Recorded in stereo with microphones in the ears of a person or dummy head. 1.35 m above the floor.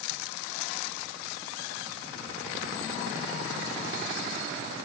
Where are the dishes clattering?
I don't hear dishes clattering.